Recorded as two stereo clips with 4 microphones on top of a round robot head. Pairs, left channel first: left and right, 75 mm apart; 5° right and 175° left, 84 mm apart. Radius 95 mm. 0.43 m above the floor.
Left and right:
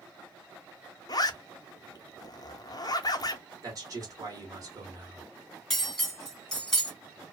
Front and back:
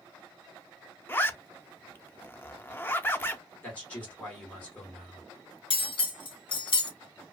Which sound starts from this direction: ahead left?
A zipper, at 1.1 s.